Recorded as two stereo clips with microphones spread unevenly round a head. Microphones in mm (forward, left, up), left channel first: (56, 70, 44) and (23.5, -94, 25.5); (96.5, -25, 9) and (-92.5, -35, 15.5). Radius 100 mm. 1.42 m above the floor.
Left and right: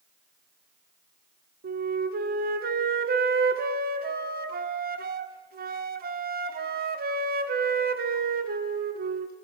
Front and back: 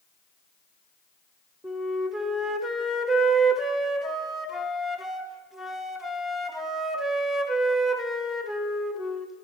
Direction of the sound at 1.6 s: 85° right.